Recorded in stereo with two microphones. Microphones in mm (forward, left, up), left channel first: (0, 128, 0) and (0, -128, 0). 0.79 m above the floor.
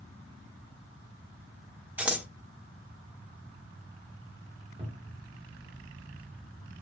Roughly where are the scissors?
Centre.